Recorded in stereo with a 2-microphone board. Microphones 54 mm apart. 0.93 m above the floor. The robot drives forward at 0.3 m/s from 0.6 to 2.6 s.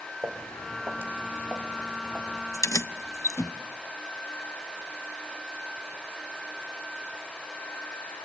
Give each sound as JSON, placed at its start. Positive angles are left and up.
{"t": 0.2, "sound": "footsteps", "side_deg": -45, "distance_m": 2.5}
{"t": 2.5, "sound": "keys jangling", "side_deg": 80, "distance_m": 0.9}